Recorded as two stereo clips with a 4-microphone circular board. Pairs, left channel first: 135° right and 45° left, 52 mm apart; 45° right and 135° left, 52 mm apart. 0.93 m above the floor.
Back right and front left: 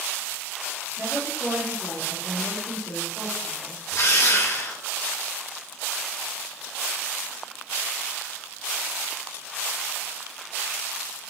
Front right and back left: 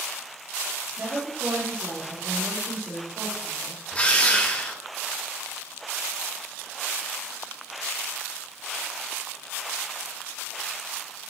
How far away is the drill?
About 2 m.